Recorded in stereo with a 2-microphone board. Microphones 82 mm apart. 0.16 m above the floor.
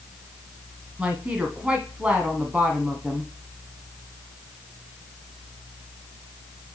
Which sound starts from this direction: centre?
A woman speaking, at 1.0 s.